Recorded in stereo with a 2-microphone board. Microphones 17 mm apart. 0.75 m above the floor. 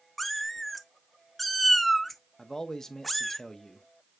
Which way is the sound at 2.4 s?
35° left (ahead or behind).